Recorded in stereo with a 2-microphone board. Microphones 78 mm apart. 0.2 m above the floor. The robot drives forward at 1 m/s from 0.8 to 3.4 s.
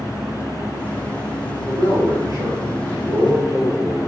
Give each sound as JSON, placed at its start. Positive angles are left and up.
{"t": 1.6, "sound": "a man speaking", "side_deg": -60, "distance_m": 3.5}